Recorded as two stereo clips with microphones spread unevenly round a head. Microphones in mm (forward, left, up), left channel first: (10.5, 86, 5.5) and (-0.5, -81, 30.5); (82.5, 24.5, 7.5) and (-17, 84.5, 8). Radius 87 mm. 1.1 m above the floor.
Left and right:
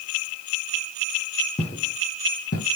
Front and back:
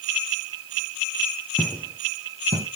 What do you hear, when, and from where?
1.6 s footsteps: 45° left, 1.2 m; by 2.7 s 120° left, 1.6 m